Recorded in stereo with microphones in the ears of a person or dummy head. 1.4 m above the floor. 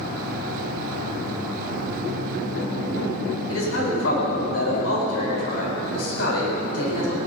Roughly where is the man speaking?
Left.